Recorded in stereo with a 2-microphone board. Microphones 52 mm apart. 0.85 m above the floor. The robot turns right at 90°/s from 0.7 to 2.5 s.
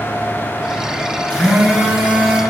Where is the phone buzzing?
155° left, 3.5 m; by 2.4 s 105° right, 3.5 m.